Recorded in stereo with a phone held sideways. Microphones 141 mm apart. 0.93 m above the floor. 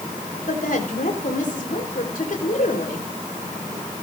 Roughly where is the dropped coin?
No dropped coin in this recording.